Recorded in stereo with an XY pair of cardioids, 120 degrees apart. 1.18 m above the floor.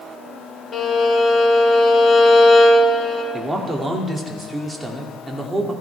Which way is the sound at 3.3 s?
15° right.